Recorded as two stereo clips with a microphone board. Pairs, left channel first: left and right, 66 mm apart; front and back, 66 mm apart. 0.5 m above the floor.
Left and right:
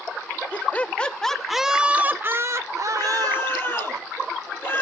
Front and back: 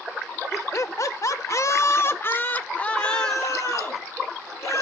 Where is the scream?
35° left, 8 m.